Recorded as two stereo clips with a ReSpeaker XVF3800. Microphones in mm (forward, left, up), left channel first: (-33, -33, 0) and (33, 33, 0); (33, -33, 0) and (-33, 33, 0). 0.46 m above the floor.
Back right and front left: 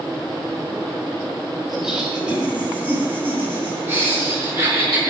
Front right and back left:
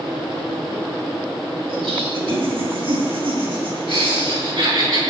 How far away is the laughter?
About 2.5 m.